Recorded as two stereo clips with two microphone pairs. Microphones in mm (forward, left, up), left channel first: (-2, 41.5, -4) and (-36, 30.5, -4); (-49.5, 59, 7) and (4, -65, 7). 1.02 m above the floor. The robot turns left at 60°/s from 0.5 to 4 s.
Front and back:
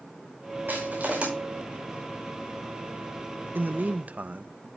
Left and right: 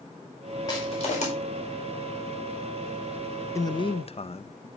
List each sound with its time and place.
0.7 s crushing: 175° left, 5.5 m; by 1.3 s 140° left, 5.5 m
3.5 s a man speaking: straight behind, 0.6 m; by 4.7 s 155° left, 0.6 m